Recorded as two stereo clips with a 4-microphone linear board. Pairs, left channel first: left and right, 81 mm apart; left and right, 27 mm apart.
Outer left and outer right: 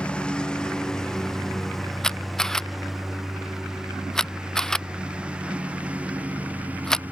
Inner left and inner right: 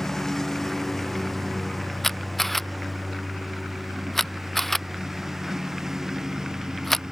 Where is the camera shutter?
5° left (ahead or behind).